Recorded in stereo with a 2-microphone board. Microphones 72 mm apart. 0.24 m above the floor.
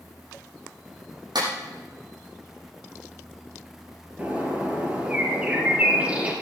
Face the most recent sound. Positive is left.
turn(degrees=-20)  # may be behind; listen again after turning